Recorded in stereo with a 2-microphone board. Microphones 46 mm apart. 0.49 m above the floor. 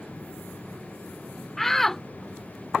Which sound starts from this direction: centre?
A shout, at 1.6 s.